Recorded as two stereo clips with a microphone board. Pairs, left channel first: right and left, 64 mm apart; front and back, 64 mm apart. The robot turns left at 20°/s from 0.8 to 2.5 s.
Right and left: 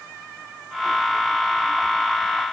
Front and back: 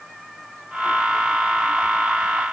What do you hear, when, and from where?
Only background noise.